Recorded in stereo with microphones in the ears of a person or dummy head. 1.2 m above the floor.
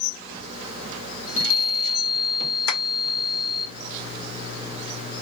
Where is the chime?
70° left (ahead or behind), 2.0 m.